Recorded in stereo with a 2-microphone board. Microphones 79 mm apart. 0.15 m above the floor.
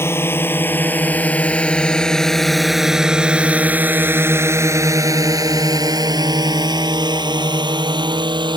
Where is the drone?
30° left (ahead or behind); by 8.6 s 75° right (ahead or behind).